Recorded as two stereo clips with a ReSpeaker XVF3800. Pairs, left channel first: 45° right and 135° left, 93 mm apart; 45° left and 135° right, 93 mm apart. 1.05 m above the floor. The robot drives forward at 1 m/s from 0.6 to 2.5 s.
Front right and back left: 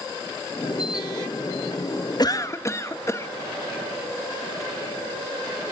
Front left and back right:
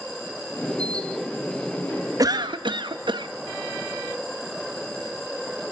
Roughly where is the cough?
Right.